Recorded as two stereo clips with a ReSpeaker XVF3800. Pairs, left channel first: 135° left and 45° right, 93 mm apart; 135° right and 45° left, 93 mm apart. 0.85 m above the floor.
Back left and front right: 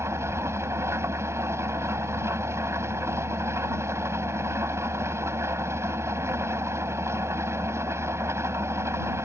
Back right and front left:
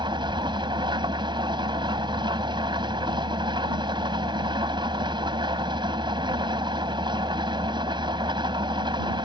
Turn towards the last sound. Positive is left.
turn(degrees=15)